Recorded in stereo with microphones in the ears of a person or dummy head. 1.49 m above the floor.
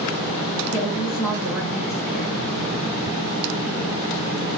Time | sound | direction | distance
0.7 | a woman speaking | centre (ahead or behind) | 1.2 m